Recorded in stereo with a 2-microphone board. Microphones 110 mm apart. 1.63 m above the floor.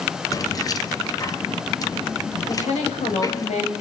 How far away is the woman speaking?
About 7.5 m.